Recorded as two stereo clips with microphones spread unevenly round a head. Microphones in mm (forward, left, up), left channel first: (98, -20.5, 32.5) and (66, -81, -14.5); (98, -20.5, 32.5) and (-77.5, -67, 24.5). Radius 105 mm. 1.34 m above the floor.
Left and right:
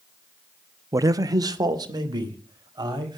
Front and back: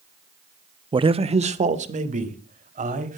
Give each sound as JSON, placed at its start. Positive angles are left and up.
{"t": 0.9, "sound": "a man speaking", "azimuth_deg": -100, "distance_m": 0.9}